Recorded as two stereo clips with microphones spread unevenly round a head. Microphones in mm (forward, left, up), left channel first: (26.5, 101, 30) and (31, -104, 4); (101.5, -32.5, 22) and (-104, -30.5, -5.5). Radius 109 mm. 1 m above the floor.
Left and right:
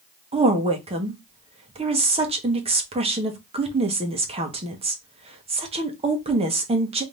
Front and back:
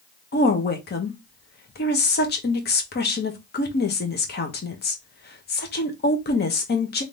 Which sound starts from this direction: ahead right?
A woman speaking, at 0.3 s.